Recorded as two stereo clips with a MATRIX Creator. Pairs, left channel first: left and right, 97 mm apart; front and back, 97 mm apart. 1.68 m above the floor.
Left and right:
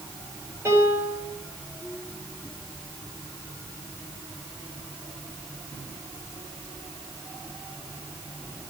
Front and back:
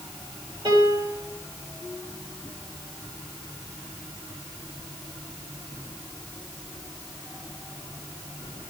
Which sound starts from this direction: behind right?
A piano, at 0.7 s.